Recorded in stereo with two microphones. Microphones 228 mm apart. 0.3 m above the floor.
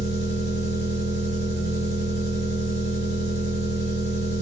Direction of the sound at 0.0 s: 50° right (ahead or behind).